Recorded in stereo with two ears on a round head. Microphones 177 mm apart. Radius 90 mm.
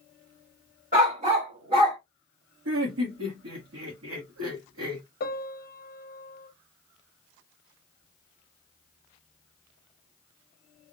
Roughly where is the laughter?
Right.